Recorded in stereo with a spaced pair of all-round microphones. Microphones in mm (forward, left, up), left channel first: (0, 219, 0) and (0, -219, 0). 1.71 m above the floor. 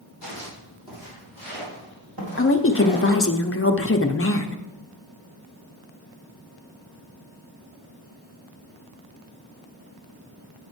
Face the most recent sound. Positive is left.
turn(degrees=30)  # may be behind; listen again after turning